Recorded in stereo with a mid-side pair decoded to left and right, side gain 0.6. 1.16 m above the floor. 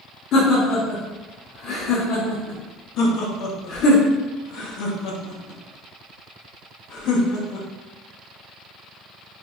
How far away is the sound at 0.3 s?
About 1.0 m.